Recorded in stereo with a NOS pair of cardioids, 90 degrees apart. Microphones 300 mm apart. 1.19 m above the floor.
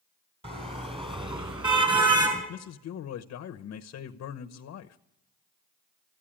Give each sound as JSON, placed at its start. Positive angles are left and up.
{"t": 0.4, "sound": "a car horn", "azimuth_deg": -20, "distance_m": 4.5}
{"t": 2.5, "sound": "a man speaking", "azimuth_deg": 55, "distance_m": 0.9}